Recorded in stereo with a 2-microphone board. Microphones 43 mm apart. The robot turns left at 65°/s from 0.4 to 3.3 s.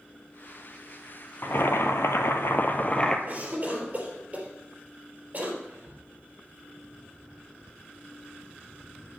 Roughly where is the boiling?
Behind left.